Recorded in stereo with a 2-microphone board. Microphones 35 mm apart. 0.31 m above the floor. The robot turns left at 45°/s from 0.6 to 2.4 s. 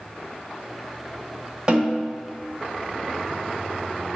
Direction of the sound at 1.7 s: 30° right (ahead or behind).